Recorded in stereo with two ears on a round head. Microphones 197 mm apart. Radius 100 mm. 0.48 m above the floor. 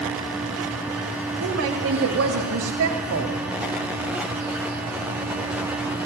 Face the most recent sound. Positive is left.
turn(degrees=-70)  # may be behind; listen again after turning